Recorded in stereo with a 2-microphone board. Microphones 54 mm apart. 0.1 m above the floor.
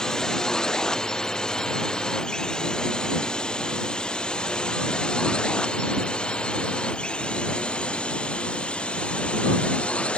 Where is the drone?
10° left (ahead or behind); by 10.2 s 20° left (ahead or behind).